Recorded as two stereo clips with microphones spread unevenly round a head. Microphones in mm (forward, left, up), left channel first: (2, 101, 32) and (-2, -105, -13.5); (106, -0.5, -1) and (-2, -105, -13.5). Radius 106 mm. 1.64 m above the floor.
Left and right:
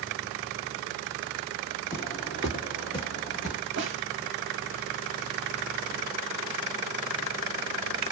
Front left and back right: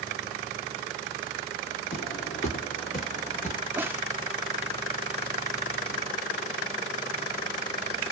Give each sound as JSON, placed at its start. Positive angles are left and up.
{"t": 1.9, "sound": "footsteps", "azimuth_deg": 25, "distance_m": 2.5}
{"t": 3.8, "sound": "a snare drum", "azimuth_deg": -55, "distance_m": 0.9}